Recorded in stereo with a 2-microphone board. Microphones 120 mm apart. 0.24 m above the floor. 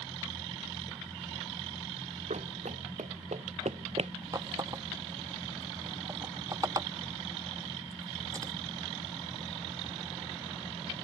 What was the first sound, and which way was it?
Running footsteps, 70° right (ahead or behind).